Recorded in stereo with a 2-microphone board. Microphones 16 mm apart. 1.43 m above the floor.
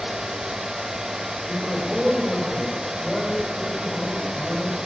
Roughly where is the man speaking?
Centre.